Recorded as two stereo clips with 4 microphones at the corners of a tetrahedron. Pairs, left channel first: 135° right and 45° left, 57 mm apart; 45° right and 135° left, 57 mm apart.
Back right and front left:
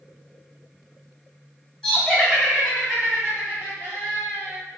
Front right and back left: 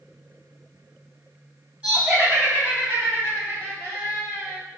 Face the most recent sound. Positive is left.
turn(degrees=80)